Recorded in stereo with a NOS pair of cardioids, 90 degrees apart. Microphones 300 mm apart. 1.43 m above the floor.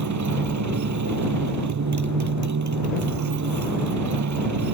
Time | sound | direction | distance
0.0 | a motorcycle | 70° right | ?